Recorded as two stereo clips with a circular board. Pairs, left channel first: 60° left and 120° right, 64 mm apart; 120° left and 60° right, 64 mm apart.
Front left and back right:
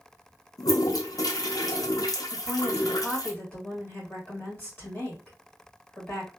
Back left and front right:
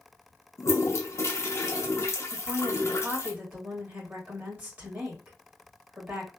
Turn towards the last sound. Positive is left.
turn(degrees=5)